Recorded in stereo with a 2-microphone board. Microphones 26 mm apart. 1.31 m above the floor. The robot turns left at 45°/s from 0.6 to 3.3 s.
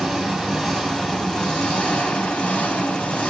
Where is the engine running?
175° right, 3 m; by 3.3 s 65° left, 3 m.